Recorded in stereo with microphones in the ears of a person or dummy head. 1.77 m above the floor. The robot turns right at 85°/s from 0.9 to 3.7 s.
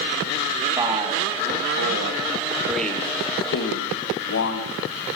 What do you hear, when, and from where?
0.8 s a man speaking: 20° right (ahead or behind), 0.9 m; by 4.7 s 65° left (ahead or behind), 0.9 m